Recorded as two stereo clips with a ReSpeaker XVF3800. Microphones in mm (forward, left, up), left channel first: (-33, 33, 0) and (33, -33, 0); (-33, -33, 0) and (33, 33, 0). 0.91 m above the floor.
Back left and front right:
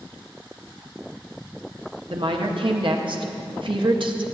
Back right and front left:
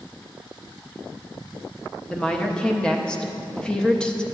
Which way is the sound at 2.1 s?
55° right.